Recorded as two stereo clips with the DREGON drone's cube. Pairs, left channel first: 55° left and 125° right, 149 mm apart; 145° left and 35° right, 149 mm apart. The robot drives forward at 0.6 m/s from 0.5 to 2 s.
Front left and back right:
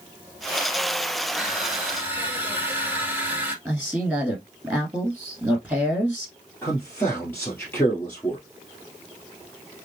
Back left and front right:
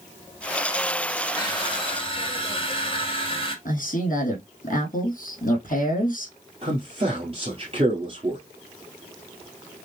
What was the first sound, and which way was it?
Crushing, 155° left.